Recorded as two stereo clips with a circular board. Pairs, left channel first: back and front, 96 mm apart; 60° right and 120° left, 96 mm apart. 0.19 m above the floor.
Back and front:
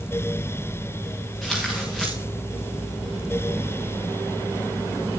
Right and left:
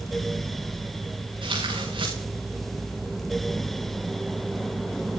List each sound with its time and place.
1.4 s tearing paper: 90° left, 6.5 m